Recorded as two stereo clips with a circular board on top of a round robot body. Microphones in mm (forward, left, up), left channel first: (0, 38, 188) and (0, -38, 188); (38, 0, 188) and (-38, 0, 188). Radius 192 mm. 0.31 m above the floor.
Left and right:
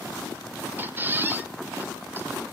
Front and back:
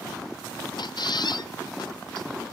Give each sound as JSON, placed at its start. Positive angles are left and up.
{"t": 0.8, "sound": "a squeak", "azimuth_deg": -25, "distance_m": 0.8}